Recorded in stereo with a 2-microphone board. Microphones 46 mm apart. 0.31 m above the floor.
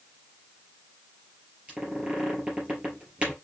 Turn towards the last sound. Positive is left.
turn(degrees=-20)  # may be behind; listen again after turning